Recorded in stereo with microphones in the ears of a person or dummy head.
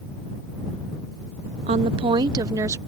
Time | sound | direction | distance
1.7 | a woman speaking | 30° right (ahead or behind) | ?